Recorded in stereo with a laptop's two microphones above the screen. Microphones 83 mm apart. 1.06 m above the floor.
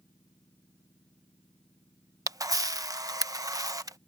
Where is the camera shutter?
45° right (ahead or behind).